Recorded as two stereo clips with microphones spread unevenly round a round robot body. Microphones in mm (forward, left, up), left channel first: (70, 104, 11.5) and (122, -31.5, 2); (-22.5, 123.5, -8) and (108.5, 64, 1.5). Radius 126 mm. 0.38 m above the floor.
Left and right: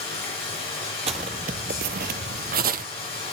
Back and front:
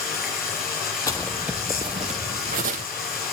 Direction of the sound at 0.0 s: 140° left.